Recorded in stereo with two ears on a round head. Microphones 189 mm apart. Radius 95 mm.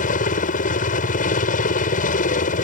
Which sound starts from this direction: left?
A helicopter, at 0.0 s.